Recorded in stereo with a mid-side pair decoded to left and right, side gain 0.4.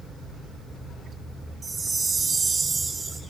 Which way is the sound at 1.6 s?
40° right.